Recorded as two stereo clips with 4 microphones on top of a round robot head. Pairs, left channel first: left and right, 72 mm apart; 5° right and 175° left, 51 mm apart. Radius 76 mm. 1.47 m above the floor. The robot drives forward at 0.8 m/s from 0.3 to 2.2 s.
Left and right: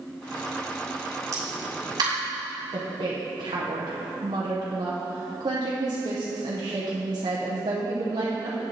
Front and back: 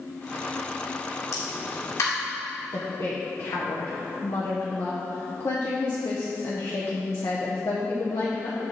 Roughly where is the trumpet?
I don't hear a trumpet.